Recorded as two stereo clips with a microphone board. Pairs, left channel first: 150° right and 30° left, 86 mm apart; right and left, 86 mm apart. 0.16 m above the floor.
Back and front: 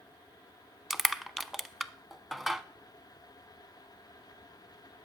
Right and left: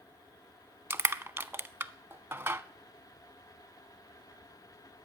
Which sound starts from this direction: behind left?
Crushing, at 0.9 s.